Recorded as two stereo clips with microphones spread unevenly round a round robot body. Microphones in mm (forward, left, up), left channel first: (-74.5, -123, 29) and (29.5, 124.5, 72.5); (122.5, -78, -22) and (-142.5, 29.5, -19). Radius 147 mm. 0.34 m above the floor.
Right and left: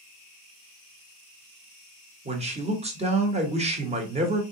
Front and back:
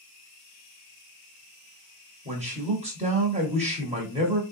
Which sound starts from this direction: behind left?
A man speaking, at 2.2 s.